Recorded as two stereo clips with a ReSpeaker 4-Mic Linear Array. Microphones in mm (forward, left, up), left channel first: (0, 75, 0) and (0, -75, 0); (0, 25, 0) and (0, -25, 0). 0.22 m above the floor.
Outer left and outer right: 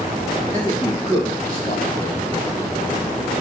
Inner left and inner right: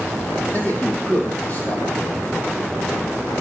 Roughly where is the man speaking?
Left.